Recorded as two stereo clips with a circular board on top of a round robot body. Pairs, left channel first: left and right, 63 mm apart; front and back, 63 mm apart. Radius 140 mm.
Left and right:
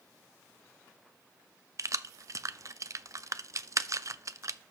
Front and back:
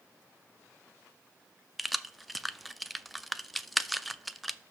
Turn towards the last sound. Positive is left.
turn(degrees=-90)